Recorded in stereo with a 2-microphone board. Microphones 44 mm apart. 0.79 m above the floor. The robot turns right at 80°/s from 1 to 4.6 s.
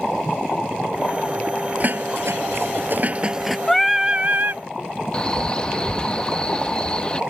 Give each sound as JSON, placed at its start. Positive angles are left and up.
{"t": 1.8, "sound": "dishes clattering", "azimuth_deg": -140}
{"t": 3.7, "sound": "singing", "azimuth_deg": 170}
{"t": 5.1, "sound": "a man speaking", "side_deg": 20}